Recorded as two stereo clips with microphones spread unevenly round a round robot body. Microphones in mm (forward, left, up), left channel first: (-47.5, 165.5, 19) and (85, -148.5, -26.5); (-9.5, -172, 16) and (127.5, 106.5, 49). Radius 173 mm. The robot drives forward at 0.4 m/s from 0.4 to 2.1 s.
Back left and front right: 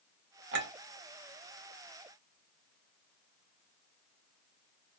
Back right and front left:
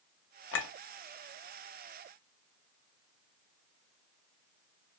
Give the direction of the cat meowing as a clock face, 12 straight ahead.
I don't hear a cat meowing.